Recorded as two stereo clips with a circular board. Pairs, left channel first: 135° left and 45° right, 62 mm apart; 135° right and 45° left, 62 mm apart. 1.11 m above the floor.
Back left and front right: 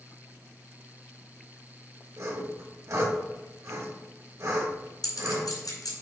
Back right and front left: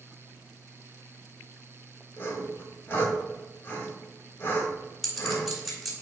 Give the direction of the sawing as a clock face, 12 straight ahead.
3 o'clock.